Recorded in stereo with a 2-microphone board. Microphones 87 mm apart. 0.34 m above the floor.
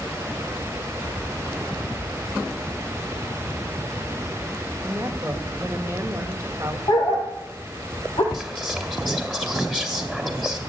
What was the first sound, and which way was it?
A woman speaking, 25° right (ahead or behind).